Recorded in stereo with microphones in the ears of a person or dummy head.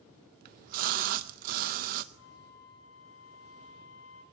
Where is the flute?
80° left, 4.5 m.